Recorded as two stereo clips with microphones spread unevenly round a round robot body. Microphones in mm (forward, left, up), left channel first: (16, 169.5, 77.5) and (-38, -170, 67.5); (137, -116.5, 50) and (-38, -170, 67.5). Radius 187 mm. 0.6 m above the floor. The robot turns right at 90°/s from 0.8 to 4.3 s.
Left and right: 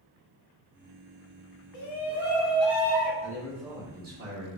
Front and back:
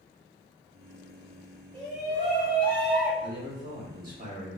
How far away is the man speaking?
About 1.7 m.